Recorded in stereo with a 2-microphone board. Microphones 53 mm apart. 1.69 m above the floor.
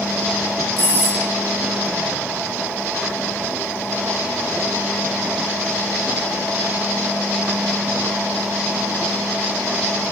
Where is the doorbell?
40° left (ahead or behind), 3 m.